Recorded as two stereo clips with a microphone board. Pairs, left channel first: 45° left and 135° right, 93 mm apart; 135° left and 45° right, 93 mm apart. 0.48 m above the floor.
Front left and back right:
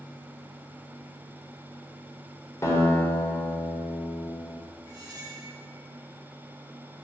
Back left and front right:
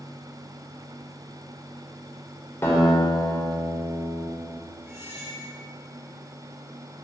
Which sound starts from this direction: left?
A guitar, at 2.6 s.